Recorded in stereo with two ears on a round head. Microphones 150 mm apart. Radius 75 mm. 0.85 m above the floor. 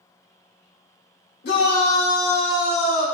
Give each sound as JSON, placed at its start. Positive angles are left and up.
{"t": 1.4, "sound": "a shout", "side_deg": 70, "distance_m": 3.0}